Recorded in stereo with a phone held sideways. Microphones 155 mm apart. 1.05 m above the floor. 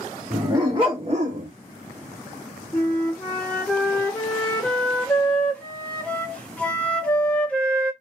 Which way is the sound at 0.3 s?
20° right (ahead or behind).